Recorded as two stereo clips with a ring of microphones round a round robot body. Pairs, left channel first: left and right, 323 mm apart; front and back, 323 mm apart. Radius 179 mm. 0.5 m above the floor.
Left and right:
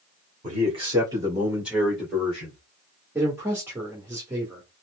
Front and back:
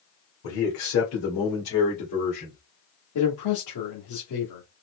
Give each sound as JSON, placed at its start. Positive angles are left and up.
{"t": 0.4, "sound": "a man speaking", "azimuth_deg": -25, "distance_m": 2.0}
{"t": 3.1, "sound": "a man speaking", "azimuth_deg": -10, "distance_m": 1.5}